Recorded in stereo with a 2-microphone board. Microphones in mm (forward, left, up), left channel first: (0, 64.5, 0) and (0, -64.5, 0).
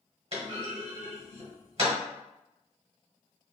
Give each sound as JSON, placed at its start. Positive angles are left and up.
{"t": 0.3, "sound": "a clunk", "side_deg": -55, "distance_m": 1.1}